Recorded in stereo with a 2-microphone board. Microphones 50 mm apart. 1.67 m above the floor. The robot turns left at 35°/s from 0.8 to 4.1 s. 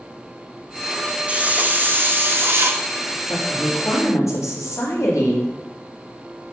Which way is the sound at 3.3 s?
65° left (ahead or behind).